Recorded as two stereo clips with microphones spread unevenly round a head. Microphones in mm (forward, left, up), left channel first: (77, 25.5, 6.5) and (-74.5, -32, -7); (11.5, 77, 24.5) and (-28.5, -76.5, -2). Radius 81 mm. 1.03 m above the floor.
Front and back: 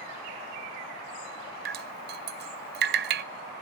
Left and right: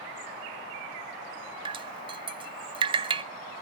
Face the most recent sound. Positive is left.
turn(degrees=-155)